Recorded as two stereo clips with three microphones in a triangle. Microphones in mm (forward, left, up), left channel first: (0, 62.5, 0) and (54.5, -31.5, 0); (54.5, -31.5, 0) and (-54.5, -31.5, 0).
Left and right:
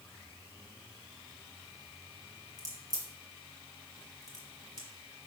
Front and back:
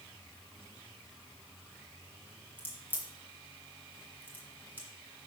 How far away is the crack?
About 1.7 m.